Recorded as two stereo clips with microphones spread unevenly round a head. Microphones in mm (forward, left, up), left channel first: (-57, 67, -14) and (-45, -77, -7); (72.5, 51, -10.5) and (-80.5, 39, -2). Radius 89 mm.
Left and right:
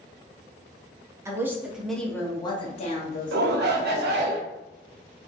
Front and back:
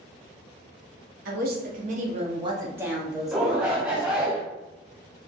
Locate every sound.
1.2 s a woman speaking: 155° right, 0.8 m; by 4.3 s 75° left, 1.1 m
3.3 s a shout: 90° right, 0.6 m